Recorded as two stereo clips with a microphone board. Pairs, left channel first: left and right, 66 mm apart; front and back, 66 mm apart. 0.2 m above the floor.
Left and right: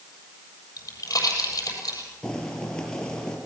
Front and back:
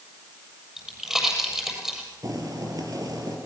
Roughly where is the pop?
Left.